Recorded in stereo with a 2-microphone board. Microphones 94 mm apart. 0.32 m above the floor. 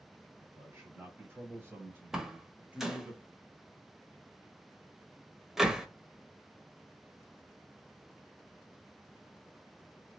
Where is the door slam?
5° right (ahead or behind), 0.7 m.